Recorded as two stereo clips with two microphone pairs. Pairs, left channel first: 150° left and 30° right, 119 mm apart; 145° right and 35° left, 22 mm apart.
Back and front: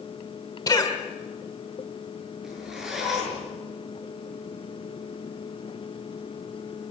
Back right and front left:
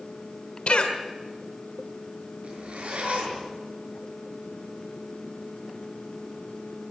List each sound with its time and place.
0.7 s a cough: 160° right, 1.7 m
2.4 s a zipper: 55° left, 6.5 m